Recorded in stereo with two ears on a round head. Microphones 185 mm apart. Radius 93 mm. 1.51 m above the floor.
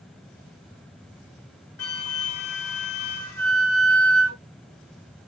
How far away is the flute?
About 1.7 m.